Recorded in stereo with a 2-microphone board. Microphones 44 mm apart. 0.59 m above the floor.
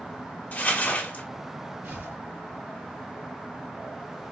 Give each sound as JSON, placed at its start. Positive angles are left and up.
{"t": 0.5, "sound": "crumpling", "side_deg": 45, "distance_m": 1.4}
{"t": 1.8, "sound": "tearing paper", "side_deg": -60, "distance_m": 1.9}